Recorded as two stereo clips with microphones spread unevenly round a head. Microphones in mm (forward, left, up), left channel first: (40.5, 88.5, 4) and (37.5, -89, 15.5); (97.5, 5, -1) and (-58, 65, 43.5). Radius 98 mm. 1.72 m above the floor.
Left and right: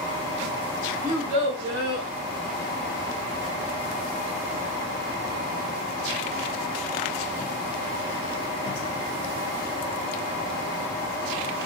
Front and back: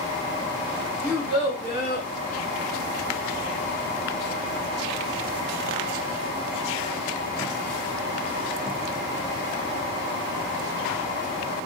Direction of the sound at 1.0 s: 145° right.